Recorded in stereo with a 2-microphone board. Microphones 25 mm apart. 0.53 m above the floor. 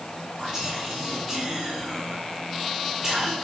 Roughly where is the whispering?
Right.